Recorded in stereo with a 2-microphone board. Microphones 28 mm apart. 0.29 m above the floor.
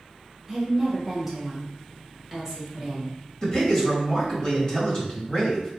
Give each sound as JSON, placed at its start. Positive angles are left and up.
{"t": 0.5, "sound": "a woman speaking", "side_deg": 0, "distance_m": 1.1}
{"t": 3.4, "sound": "a man speaking", "side_deg": 35, "distance_m": 1.6}